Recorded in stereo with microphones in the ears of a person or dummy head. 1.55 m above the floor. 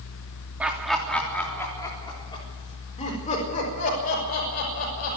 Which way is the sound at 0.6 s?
5° right (ahead or behind).